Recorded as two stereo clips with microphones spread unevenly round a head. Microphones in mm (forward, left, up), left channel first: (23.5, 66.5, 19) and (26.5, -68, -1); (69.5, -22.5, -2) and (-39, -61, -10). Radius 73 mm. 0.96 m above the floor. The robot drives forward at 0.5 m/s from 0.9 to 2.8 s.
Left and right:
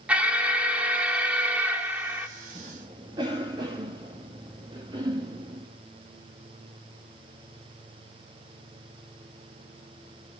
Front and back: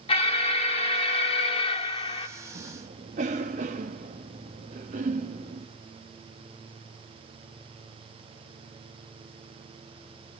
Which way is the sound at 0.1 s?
10° right.